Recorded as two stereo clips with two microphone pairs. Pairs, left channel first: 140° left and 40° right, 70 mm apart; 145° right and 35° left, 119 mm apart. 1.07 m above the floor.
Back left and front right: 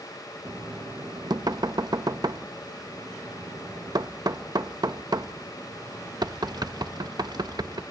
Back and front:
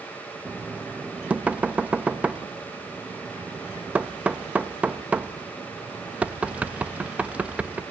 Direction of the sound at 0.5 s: 45° right.